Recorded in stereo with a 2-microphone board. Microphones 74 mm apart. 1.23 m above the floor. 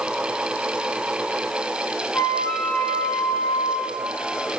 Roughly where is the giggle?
No giggle in this recording.